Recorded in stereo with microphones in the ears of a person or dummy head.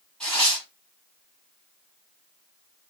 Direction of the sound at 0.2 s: 5° left (ahead or behind).